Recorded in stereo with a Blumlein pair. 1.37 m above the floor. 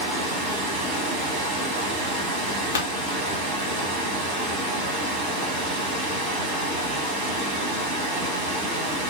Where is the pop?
65° left, 1.2 m.